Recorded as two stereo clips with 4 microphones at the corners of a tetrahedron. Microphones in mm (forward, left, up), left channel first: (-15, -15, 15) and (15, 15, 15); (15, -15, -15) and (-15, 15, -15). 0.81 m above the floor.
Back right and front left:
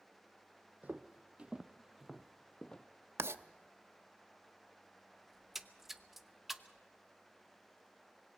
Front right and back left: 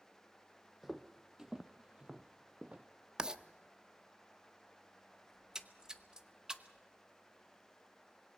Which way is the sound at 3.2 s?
65° left.